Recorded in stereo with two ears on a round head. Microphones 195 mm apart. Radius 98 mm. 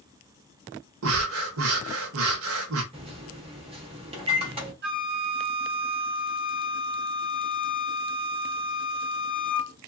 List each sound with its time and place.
1.0 s breathing: 70° right (ahead or behind), 0.7 m
2.9 s a microwave: 25° right (ahead or behind), 1.0 m
4.8 s a flute: 50° right (ahead or behind), 1.0 m